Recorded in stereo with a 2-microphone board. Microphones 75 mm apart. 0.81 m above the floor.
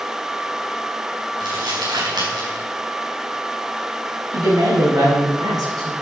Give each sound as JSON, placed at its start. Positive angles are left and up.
{"t": 1.4, "sound": "crumpling", "side_deg": -75, "distance_m": 5.0}
{"t": 4.3, "sound": "a woman speaking", "side_deg": -60, "distance_m": 5.5}